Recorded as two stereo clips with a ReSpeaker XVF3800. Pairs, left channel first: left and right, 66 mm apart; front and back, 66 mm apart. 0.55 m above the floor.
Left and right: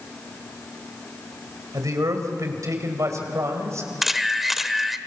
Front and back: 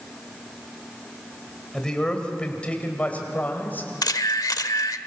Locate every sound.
1.7 s a man speaking: 80° right, 3 m; by 3.9 s 55° right, 3.5 m
4.0 s a camera shutter: 5° right, 0.9 m